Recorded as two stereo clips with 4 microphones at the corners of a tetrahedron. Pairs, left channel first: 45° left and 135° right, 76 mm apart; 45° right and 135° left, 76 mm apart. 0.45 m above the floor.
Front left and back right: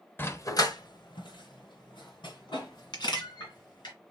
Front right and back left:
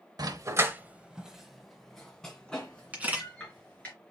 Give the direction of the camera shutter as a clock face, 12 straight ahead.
10 o'clock.